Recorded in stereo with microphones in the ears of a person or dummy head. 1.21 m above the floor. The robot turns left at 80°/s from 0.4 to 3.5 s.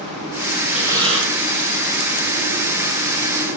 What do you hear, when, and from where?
0.7 s breathing: 5° right, 7.5 m; by 1.3 s 50° right, 7.5 m